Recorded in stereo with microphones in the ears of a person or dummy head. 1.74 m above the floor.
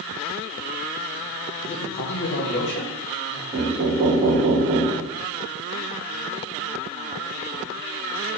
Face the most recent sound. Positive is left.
turn(degrees=-15)  # may be behind; listen again after turning